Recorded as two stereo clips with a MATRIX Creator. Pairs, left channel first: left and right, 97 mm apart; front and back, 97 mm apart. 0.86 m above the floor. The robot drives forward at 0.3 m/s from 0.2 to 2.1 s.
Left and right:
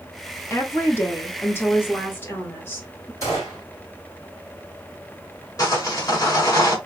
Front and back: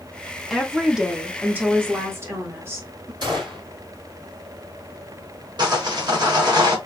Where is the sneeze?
I don't hear a sneeze.